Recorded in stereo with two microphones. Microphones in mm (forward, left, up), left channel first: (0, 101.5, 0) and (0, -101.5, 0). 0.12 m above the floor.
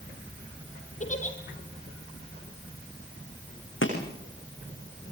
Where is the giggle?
40° left (ahead or behind), 4 m.